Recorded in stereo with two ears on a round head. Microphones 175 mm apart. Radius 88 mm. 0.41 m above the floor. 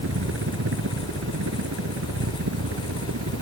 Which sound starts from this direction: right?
A helicopter, at 0.0 s.